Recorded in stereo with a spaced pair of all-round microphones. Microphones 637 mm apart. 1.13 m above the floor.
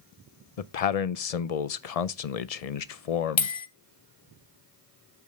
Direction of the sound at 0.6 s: 75° left (ahead or behind).